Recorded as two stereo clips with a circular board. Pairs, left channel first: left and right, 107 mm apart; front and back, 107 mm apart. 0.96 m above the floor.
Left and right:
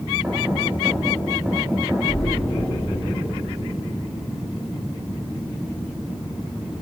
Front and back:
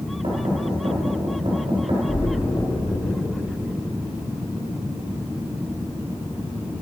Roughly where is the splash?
Ahead left.